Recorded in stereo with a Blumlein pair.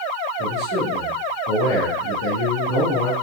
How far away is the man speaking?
About 2 m.